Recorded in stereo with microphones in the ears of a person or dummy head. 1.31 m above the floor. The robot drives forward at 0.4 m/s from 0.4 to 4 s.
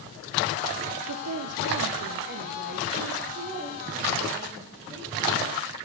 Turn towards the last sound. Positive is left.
turn(degrees=-25)  # may be behind; listen again after turning